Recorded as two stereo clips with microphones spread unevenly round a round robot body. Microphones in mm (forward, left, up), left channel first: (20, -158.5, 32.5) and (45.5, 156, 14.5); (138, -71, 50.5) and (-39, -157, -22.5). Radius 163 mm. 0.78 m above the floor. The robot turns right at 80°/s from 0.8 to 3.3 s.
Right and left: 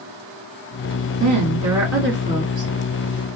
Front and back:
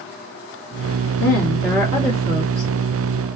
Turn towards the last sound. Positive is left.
turn(degrees=-130)